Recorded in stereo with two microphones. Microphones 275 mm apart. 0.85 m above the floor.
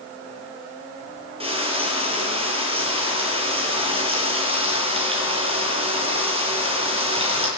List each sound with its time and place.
1.4 s frying: 20° right (ahead or behind), 9 m